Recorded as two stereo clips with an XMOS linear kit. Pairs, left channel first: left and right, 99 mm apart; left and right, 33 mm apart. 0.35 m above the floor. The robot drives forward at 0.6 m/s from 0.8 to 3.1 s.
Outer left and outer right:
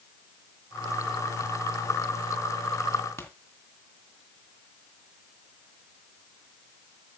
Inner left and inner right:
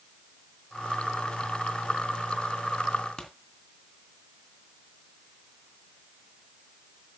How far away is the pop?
About 2.5 m.